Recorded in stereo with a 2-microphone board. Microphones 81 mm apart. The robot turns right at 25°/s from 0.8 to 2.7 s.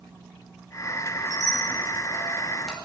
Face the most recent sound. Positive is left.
turn(degrees=5)  # may be behind; listen again after turning